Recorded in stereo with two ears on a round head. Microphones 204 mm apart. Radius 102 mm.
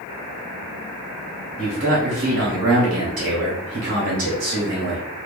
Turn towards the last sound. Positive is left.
turn(degrees=-55)  # may be behind; listen again after turning